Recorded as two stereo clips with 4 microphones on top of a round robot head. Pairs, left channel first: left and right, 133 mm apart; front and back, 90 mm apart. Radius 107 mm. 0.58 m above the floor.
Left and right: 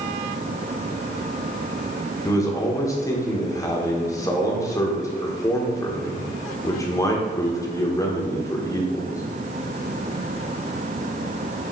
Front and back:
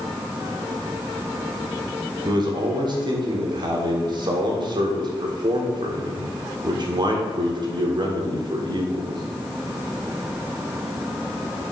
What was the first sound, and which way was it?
A man speaking, 155° left.